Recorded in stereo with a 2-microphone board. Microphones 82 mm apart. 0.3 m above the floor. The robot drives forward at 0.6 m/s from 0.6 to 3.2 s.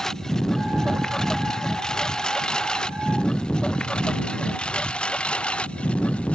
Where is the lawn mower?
5° left (ahead or behind); by 6.4 s 15° left (ahead or behind).